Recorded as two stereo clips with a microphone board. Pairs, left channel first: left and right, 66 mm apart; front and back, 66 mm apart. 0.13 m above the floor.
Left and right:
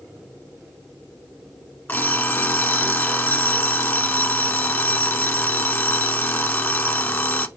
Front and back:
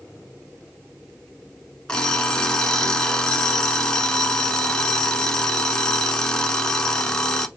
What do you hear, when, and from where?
1.9 s an alarm clock: 65° left, 0.7 m